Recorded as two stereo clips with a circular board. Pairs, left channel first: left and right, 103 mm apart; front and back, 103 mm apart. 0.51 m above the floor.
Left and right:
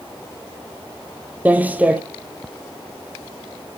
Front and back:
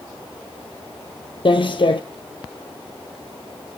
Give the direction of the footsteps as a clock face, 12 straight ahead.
1 o'clock.